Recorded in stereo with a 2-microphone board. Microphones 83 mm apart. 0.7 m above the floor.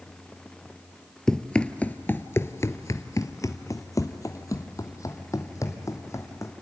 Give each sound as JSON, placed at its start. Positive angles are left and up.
{"t": 1.3, "sound": "running footsteps", "side_deg": 5, "distance_m": 0.9}